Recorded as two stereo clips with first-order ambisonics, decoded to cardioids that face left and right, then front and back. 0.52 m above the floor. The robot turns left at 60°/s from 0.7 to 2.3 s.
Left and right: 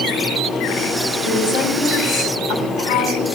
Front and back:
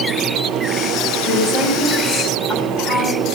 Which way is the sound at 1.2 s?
135° left.